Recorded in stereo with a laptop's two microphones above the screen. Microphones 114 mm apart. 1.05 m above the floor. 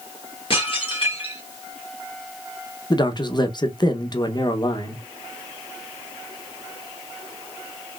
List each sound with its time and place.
0.5 s dishes clattering: 50° left (ahead or behind), 2 m
2.9 s a man speaking: 40° left (ahead or behind), 0.7 m